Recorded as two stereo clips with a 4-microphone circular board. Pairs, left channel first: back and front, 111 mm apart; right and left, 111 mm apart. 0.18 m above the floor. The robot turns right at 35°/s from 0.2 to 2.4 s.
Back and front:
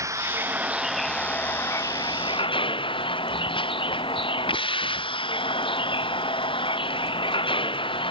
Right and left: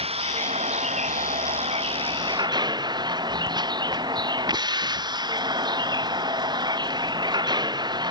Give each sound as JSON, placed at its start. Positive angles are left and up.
{"t": 0.0, "sound": "a vehicle", "azimuth_deg": 65}